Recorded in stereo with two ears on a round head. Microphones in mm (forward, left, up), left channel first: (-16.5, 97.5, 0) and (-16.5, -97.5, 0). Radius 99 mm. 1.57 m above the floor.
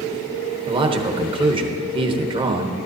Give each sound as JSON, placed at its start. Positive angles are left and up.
{"t": 0.7, "sound": "a man speaking", "side_deg": -25, "distance_m": 1.1}